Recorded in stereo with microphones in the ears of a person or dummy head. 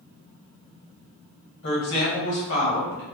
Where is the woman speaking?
70° left (ahead or behind), 1.7 m.